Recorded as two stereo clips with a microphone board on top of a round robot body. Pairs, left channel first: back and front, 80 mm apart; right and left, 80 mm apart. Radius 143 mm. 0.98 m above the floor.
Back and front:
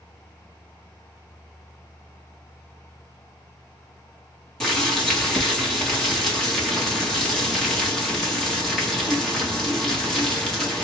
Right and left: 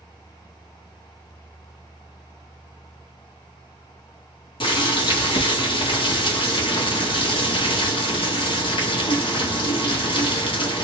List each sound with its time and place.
4.6 s boiling: 95° right, 1.5 m